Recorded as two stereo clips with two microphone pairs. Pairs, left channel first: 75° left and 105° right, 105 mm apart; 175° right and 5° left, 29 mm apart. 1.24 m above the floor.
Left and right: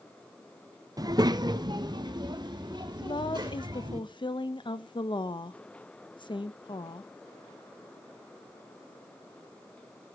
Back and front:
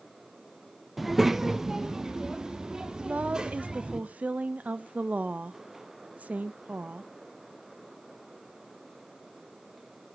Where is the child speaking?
80° right, 0.6 m; by 4.0 s 60° right, 2 m.